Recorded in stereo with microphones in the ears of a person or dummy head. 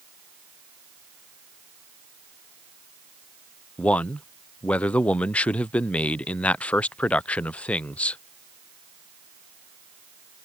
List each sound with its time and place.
3.8 s a man speaking: 5° left (ahead or behind)